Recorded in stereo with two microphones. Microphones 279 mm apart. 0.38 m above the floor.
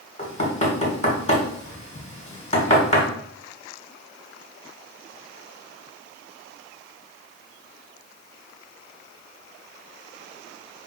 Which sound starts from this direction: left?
Knocking, at 0.2 s.